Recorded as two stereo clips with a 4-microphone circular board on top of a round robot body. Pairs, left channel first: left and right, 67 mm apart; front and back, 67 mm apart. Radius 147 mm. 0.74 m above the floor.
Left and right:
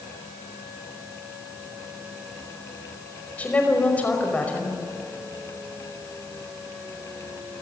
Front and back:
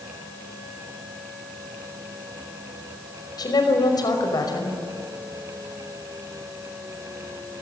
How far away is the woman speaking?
About 5.5 m.